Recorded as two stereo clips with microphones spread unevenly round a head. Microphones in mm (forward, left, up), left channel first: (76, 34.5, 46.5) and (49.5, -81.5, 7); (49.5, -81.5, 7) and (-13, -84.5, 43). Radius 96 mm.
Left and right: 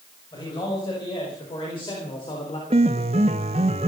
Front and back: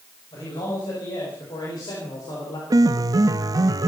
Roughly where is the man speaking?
Ahead left.